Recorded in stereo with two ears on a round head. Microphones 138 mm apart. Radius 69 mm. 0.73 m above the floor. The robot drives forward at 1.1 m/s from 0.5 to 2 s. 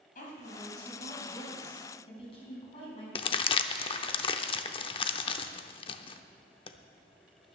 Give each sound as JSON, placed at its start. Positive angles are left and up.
{"t": 0.1, "sound": "a woman speaking", "side_deg": 55, "distance_m": 4.0}
{"t": 3.1, "sound": "crumpling", "side_deg": 35, "distance_m": 0.6}